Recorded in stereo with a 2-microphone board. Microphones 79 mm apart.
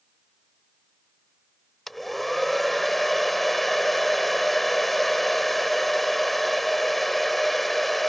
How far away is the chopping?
No chopping in this recording.